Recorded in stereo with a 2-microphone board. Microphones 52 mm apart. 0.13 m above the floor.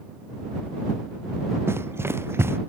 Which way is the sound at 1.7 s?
50° right (ahead or behind).